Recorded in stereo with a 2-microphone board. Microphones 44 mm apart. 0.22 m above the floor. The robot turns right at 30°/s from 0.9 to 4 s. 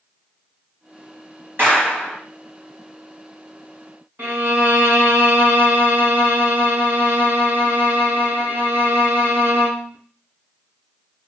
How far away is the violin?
About 1.7 m.